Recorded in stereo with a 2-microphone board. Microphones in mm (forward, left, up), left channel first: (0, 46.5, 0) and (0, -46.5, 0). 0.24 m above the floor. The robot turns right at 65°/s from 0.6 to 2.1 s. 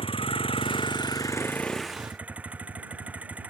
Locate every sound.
0.0 s a vehicle: 100° left; by 3.5 s 165° right